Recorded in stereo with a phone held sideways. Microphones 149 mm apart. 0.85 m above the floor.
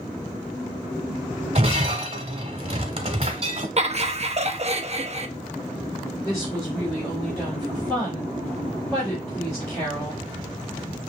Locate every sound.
1.6 s breaking glass: 45° right (ahead or behind), 1.0 m
3.8 s laughter: 45° right (ahead or behind), 0.6 m
6.2 s a woman speaking: 20° left (ahead or behind), 3 m